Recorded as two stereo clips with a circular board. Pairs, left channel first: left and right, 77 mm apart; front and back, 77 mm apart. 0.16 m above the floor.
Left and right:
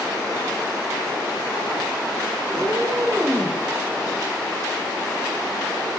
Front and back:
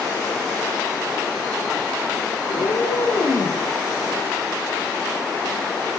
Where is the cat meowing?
30° right, 8 m; by 3.6 s 35° right, 8.5 m.